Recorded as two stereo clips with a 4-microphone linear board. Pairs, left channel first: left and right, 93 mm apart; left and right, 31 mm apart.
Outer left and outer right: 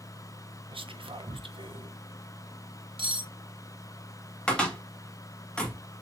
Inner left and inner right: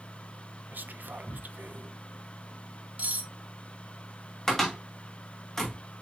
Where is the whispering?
70° right (ahead or behind), 0.7 m.